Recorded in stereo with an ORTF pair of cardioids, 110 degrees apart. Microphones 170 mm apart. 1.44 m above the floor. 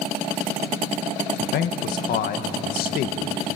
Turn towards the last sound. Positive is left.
turn(degrees=65)